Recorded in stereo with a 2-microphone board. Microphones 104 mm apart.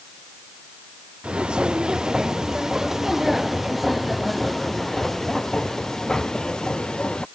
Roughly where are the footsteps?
Centre.